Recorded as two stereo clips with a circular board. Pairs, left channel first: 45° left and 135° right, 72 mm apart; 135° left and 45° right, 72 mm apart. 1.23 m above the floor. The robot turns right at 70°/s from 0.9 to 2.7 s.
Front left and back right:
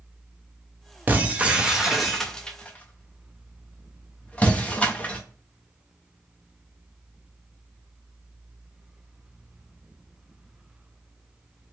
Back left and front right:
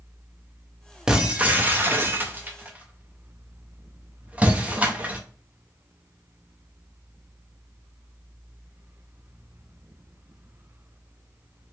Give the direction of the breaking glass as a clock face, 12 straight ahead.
4 o'clock.